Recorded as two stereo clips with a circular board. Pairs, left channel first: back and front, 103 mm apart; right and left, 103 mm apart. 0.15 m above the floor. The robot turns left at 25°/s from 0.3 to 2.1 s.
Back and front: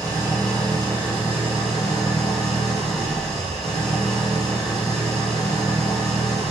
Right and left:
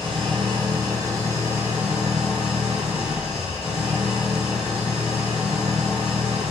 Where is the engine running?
55° left, 4 m; by 6.5 s 10° left, 4 m.